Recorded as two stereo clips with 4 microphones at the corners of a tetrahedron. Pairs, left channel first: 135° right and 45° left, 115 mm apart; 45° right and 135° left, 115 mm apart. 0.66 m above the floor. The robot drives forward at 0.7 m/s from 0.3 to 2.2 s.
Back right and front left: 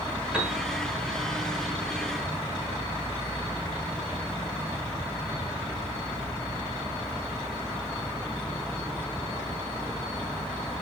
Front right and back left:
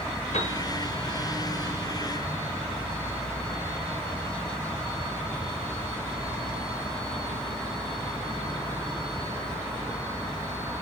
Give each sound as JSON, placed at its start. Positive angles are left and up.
{"t": 0.3, "sound": "a piano", "azimuth_deg": -35, "distance_m": 3.0}